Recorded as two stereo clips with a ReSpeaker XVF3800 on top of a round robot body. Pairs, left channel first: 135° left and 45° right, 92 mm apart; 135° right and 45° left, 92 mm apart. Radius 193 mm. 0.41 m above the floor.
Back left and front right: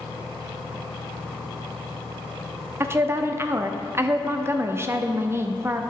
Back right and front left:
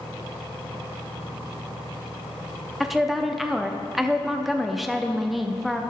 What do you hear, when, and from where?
2.8 s a woman speaking: 40° right, 0.8 m